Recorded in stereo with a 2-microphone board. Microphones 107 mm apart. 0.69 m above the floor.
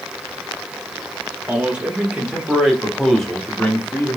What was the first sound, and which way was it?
A man speaking, 15° right (ahead or behind).